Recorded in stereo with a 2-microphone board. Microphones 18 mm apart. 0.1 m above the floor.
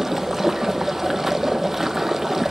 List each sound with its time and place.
0.0 s running water: 15° right (ahead or behind), 0.7 m